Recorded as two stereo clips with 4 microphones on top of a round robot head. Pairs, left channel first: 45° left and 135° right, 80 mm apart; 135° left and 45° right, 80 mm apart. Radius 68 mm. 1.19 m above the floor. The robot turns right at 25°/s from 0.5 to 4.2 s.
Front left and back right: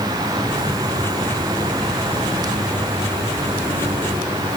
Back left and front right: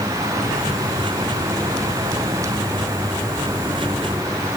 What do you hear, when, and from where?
Only background noise.